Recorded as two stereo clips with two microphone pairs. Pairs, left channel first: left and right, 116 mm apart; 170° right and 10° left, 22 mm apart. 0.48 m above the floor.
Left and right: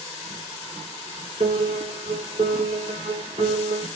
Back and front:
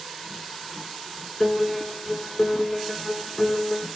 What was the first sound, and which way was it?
A piano, 120° right.